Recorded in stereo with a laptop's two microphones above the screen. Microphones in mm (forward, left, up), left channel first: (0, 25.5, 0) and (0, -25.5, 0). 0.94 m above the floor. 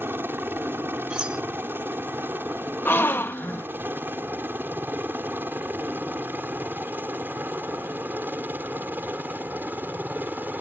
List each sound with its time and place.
0.0 s a helicopter: 45° right (ahead or behind); by 10.6 s 35° right (ahead or behind)
1.1 s cutlery clinking: 20° right (ahead or behind)
2.9 s a gasp: 40° left (ahead or behind)